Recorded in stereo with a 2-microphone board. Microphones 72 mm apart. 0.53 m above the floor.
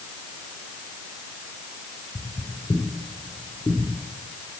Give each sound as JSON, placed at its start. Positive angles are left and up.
{"t": 2.1, "sound": "footsteps", "side_deg": 35, "distance_m": 3.5}